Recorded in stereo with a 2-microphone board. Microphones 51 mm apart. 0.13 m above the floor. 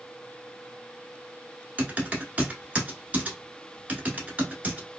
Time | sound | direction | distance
1.8 | typing on a keyboard | 30° right (ahead or behind) | 1.0 m